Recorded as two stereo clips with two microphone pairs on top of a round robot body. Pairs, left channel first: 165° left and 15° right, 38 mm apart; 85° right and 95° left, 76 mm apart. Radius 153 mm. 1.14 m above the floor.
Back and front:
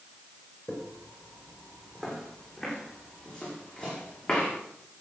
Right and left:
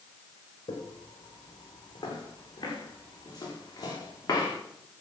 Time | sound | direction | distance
0.7 | footsteps | 115° right | 4 m